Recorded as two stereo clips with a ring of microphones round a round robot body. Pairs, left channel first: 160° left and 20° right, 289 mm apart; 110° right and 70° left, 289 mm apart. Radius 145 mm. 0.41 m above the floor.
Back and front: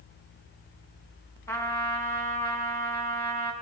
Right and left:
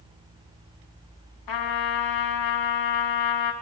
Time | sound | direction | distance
1.5 | a trumpet | 120° right | 4 m